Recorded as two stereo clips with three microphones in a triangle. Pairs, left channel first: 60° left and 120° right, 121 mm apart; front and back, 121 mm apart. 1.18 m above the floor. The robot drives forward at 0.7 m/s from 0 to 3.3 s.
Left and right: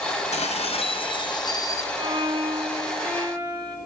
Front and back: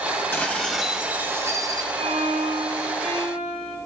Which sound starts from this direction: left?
Dishes clattering, at 0.3 s.